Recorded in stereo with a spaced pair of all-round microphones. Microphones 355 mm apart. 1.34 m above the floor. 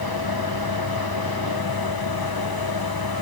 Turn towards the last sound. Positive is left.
turn(degrees=80)